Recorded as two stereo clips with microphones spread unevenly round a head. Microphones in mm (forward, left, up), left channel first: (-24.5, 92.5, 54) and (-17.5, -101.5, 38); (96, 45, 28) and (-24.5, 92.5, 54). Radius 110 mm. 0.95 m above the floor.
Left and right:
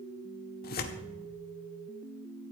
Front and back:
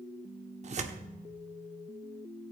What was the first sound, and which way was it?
Tearing paper, 130° left.